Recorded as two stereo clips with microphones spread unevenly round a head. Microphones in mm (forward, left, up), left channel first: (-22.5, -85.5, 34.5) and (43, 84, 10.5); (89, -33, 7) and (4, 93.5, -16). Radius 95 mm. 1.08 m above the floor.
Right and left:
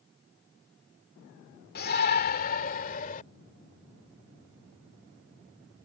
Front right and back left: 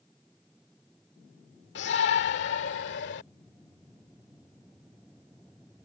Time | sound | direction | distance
1.8 | a shout | 75° right | ?